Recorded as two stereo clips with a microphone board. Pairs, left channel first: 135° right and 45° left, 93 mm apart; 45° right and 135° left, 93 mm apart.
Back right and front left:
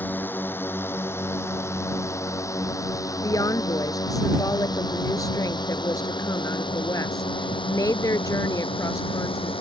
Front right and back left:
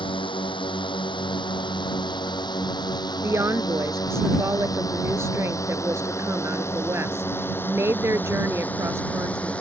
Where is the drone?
65° right; by 9.6 s 120° right.